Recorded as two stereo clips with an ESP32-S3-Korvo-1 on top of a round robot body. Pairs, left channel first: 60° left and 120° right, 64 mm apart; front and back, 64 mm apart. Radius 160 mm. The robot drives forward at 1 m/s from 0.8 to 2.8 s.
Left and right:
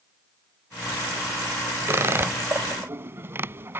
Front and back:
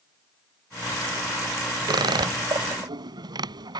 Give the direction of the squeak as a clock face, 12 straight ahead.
6 o'clock.